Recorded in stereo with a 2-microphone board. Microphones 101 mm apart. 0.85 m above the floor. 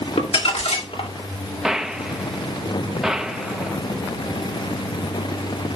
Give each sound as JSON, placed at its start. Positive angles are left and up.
{"t": 0.2, "sound": "crumpling", "side_deg": 75, "distance_m": 2.5}
{"t": 1.6, "sound": "a gunshot", "side_deg": -5, "distance_m": 0.8}